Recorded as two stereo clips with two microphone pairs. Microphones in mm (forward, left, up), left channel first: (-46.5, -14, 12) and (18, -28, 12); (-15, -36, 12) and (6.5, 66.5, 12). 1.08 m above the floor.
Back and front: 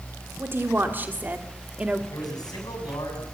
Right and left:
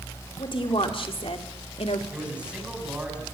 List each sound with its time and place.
0.4 s a woman speaking: 65° right, 3 m; by 2.0 s 85° right, 2.5 m
2.1 s a man speaking: 160° left, 7.5 m